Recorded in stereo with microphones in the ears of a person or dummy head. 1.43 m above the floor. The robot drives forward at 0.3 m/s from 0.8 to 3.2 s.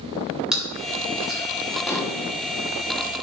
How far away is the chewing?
About 3 m.